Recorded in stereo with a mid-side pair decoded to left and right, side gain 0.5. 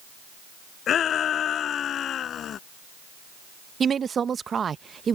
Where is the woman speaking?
40° right.